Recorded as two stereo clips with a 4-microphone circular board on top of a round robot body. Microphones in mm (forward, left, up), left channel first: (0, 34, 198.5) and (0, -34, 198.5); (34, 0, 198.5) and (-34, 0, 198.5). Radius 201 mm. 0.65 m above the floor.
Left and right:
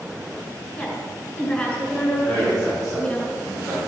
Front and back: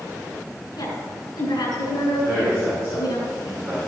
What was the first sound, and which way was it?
A woman speaking, 25° left.